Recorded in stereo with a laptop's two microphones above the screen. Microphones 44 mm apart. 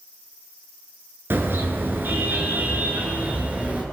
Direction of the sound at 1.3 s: 55° right (ahead or behind).